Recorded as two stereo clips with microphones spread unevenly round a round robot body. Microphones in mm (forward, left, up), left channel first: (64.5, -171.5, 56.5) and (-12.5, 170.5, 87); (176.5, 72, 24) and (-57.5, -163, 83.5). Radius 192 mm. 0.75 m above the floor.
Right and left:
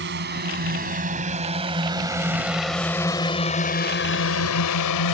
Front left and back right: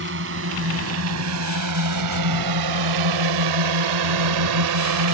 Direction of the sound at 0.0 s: 165° left.